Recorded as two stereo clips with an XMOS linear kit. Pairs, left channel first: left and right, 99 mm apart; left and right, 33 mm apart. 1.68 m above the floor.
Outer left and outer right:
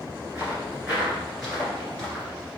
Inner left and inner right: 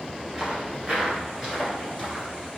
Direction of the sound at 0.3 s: 20° right (ahead or behind).